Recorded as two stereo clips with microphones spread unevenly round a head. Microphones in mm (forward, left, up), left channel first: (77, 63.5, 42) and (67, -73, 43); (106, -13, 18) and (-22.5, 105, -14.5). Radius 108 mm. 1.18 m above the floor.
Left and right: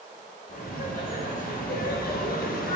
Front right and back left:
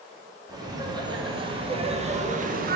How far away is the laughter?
About 2.5 m.